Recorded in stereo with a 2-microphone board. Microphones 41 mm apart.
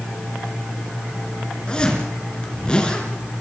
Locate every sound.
1.7 s a zipper: 20° left (ahead or behind), 4 m